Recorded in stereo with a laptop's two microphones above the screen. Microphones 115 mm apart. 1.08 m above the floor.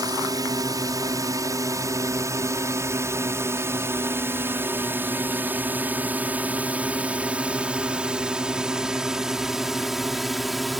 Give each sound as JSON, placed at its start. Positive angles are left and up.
{"t": 0.0, "sound": "a drone", "side_deg": -30}